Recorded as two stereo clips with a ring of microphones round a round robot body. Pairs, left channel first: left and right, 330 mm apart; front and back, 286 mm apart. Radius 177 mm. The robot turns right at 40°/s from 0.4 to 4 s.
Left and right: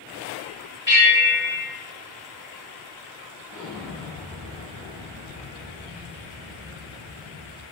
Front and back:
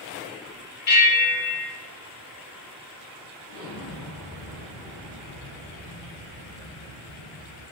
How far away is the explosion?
About 1.2 m.